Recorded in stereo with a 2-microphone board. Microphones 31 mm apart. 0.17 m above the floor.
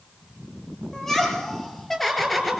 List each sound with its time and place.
0.9 s laughter: 10° left (ahead or behind), 4.5 m; by 2.6 s 5° right (ahead or behind), 3 m